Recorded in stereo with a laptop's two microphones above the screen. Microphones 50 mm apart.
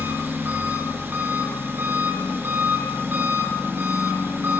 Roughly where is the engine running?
Right.